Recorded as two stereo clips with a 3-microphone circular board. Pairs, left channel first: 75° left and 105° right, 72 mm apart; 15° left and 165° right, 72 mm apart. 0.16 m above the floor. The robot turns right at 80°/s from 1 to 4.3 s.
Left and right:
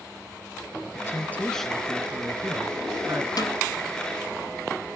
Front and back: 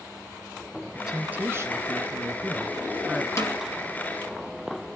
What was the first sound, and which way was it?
A man speaking, 110° left.